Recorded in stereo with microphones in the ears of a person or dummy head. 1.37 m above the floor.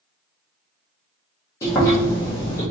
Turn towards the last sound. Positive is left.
turn(degrees=15)  # may be behind; listen again after turning